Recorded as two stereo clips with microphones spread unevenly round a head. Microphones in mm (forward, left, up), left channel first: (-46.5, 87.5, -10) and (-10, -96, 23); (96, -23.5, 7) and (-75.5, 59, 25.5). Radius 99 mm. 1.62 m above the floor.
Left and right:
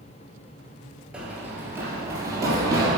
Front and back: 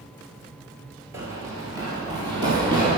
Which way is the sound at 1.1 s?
145° right.